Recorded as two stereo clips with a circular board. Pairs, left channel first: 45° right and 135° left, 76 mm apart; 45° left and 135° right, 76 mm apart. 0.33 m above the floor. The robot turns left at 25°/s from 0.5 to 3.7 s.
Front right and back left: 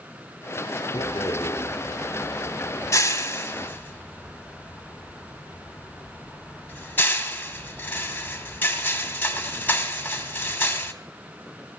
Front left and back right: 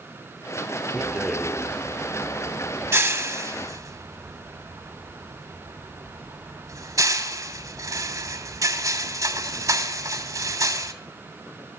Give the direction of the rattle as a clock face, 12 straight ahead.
1 o'clock.